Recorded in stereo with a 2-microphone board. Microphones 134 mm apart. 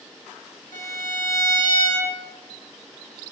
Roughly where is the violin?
Left.